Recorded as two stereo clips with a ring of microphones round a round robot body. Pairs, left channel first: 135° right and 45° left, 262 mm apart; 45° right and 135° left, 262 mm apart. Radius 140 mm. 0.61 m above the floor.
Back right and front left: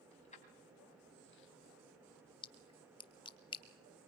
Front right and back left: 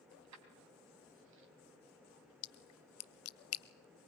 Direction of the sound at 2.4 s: 65° right.